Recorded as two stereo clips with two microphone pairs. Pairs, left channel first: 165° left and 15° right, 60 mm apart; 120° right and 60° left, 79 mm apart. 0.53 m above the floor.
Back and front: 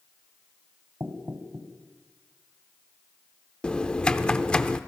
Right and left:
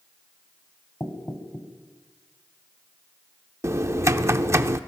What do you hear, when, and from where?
1.0 s knocking: 60° right, 2 m
3.6 s typing on a keyboard: 100° left, 0.7 m